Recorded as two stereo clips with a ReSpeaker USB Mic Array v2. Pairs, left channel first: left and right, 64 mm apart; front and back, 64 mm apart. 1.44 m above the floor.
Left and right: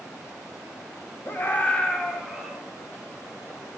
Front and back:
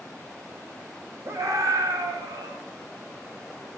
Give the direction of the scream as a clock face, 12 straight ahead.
7 o'clock.